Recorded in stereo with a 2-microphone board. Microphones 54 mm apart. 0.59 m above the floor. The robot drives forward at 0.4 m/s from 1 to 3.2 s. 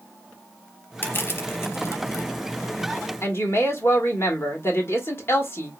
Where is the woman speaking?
45° left (ahead or behind), 1.6 m.